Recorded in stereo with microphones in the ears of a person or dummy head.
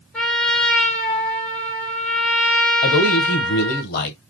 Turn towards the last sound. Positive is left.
turn(degrees=55)  # may be behind; listen again after turning